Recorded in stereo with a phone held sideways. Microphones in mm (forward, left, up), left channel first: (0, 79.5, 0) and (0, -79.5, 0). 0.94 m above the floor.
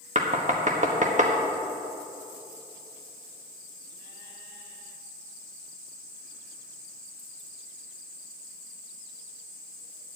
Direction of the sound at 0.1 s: 50° right (ahead or behind).